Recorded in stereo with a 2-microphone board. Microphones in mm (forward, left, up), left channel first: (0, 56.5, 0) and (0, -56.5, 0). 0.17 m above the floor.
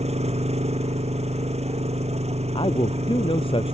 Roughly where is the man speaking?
Left.